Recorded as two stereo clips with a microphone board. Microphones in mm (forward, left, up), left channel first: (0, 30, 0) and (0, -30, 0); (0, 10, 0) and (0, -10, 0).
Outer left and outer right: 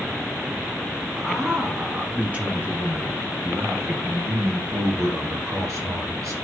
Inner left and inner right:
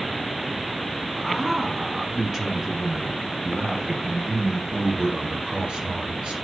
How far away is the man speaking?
About 2.5 m.